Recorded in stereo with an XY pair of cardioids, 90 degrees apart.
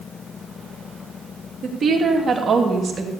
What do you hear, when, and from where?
1.6 s a woman speaking: 50° right, 3 m; by 3.1 s 35° right, 2.5 m